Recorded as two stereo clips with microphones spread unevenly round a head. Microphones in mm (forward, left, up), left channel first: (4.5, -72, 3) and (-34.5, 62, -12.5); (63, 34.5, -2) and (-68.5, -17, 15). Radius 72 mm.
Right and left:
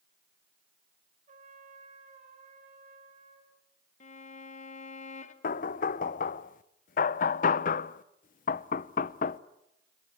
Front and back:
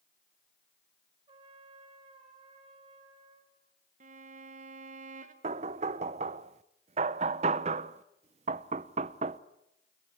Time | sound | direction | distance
1.3 | a trumpet | 150° left | 4 m
4.0 | a violin | 115° right | 1.5 m
5.4 | knocking | 110° right | 0.6 m